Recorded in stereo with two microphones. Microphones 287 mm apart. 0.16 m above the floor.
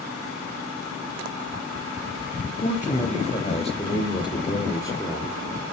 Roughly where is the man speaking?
Left.